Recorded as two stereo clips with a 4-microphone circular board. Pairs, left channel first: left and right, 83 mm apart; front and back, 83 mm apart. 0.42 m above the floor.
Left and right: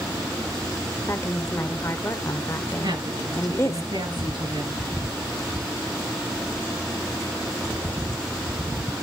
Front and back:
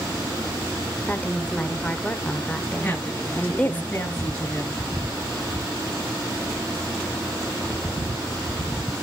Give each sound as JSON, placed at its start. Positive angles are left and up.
{"t": 1.1, "sound": "a woman speaking", "azimuth_deg": 60, "distance_m": 1.0}
{"t": 2.8, "sound": "a woman speaking", "azimuth_deg": -70, "distance_m": 5.0}